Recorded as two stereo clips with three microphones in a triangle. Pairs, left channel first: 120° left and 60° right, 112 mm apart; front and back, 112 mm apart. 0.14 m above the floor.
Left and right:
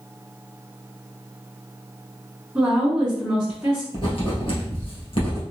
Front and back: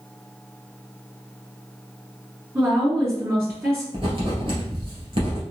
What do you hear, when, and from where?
2.5 s a woman speaking: 140° right, 1.6 m
3.9 s writing: 150° left, 1.8 m